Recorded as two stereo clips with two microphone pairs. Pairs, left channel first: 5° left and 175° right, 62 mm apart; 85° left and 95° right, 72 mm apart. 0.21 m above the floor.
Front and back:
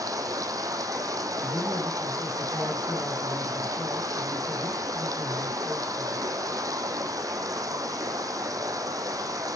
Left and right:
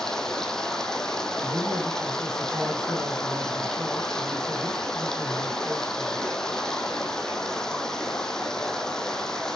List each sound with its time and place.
0.0 s running water: 165° left, 1.7 m
1.4 s a man speaking: 60° right, 6 m